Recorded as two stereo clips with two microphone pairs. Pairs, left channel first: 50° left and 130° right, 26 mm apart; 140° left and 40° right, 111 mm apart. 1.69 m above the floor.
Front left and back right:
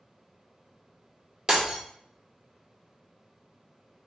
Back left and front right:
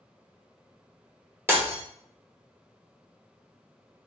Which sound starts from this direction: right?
Breaking glass, at 1.5 s.